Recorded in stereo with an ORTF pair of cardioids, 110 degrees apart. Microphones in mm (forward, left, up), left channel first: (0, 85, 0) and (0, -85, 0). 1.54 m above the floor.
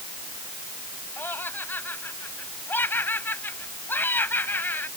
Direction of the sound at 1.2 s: 10° left.